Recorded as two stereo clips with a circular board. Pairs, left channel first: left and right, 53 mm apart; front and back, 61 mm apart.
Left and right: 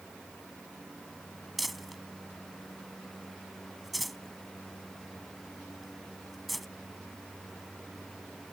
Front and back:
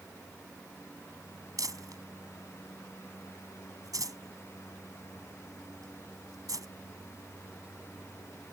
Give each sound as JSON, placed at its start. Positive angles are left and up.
{"t": 1.6, "sound": "crumpling", "azimuth_deg": 180}